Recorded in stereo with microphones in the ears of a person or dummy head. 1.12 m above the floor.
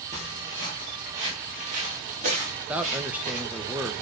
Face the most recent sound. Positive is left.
turn(degrees=-5)  # may be behind; listen again after turning